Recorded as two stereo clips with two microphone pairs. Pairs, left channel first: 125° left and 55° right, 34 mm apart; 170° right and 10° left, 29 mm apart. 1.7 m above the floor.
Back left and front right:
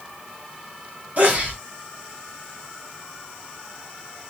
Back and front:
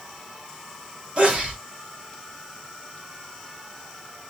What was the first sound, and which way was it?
A sneeze, 25° right.